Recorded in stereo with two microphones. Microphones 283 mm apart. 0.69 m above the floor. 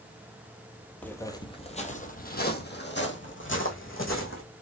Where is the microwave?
I don't hear a microwave.